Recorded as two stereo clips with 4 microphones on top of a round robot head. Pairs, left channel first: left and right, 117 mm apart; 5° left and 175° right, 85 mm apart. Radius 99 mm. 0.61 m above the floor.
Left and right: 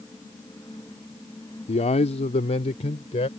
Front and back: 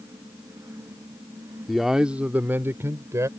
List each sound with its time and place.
1.7 s a man speaking: 95° left; by 3.3 s 130° left